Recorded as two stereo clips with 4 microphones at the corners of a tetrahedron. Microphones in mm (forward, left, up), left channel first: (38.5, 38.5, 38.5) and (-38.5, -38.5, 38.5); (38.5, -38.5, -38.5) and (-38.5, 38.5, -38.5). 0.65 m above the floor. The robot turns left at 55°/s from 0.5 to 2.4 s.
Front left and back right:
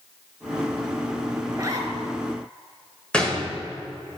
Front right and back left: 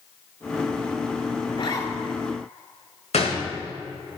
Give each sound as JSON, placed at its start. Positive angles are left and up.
{"t": 1.5, "sound": "a zipper", "azimuth_deg": -70, "distance_m": 1.8}
{"t": 3.1, "sound": "a gunshot", "azimuth_deg": -35, "distance_m": 1.9}